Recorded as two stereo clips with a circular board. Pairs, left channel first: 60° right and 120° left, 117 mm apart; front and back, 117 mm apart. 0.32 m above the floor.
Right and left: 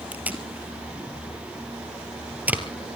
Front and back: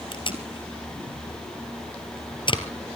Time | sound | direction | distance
0.1 | tape being pulled | 45° left | 2 m